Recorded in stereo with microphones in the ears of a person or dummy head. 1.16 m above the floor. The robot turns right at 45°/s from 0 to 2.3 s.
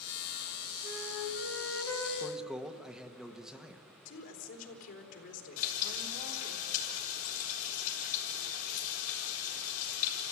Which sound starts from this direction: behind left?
A flute, at 0.8 s.